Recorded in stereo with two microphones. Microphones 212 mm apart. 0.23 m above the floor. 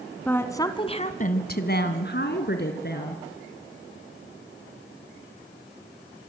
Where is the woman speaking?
10° left (ahead or behind), 2 m; by 3.2 s 50° left (ahead or behind), 3.5 m.